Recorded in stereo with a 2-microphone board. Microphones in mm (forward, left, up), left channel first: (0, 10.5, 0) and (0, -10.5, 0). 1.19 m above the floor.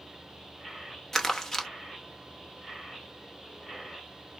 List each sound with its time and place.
1.1 s crumpling: 15° left (ahead or behind), 0.9 m